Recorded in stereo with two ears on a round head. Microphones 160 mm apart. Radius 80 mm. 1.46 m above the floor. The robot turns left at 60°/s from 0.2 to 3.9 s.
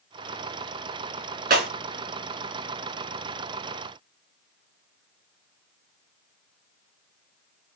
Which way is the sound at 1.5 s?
50° right (ahead or behind).